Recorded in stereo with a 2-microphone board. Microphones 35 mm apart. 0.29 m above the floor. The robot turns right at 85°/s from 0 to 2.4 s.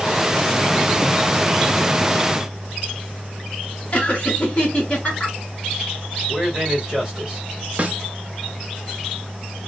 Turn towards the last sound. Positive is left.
turn(degrees=-35)  # may be behind; listen again after turning